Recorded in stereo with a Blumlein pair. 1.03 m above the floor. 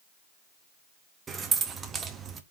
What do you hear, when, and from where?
1.3 s keys jangling: 20° right, 0.7 m